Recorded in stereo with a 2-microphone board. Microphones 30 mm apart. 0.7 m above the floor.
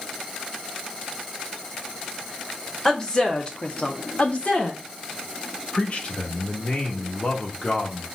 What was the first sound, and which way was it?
A woman speaking, 20° left (ahead or behind).